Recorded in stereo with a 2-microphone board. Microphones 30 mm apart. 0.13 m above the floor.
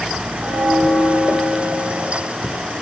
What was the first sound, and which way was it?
A bell, 60° right (ahead or behind).